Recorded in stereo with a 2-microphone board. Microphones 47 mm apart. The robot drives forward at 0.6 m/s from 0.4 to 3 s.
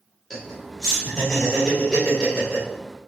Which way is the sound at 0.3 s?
5° left (ahead or behind).